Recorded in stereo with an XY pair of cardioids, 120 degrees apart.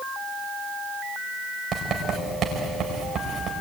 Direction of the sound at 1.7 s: 45° right.